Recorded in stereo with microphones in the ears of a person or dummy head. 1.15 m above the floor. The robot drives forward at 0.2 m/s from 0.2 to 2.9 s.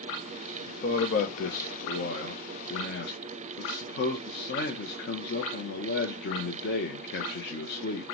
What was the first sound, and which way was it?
A man speaking, 45° left (ahead or behind).